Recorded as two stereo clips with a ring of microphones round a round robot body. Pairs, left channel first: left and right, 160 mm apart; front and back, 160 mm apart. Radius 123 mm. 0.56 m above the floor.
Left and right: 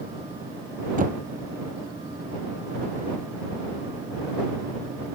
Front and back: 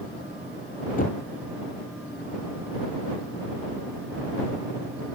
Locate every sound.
1.0 s knocking: 55° right